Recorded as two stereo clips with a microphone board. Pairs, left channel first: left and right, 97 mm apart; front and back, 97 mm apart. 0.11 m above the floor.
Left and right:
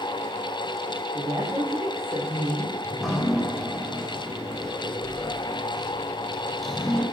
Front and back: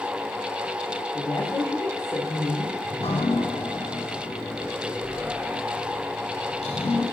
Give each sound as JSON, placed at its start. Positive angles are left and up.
{"t": 1.1, "sound": "a woman speaking", "azimuth_deg": -60, "distance_m": 7.0}
{"t": 2.8, "sound": "dripping", "azimuth_deg": 0, "distance_m": 5.0}